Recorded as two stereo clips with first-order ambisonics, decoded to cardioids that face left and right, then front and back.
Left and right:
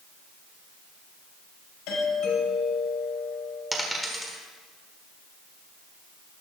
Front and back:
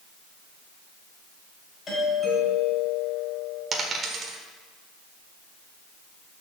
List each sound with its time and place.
1.9 s a doorbell: 70° left, 4.5 m
3.7 s a dropped coin: straight behind, 1.4 m